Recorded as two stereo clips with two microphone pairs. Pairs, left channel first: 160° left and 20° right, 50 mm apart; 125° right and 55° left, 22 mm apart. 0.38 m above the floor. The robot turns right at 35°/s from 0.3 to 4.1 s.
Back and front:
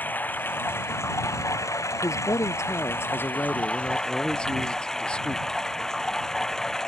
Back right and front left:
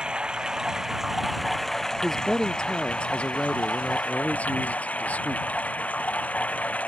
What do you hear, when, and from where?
0.0 s running water: 105° left; by 6.9 s 120° right
2.0 s a man speaking: 160° left; by 5.5 s 130° right